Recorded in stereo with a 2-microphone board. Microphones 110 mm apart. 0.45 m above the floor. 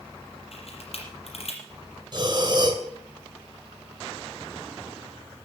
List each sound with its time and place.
0.5 s a camera shutter: 65° left (ahead or behind), 6 m
2.1 s breathing: 40° right (ahead or behind), 2.5 m